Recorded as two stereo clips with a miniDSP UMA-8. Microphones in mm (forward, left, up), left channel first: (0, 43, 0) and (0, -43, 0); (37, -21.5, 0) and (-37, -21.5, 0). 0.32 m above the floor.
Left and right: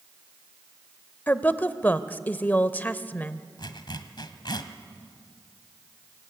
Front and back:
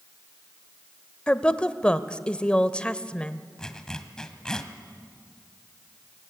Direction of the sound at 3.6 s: 80° left.